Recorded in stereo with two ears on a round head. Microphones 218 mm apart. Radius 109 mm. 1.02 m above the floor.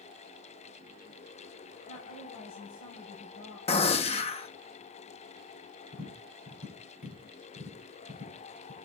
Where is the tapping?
70° left (ahead or behind), 7 m.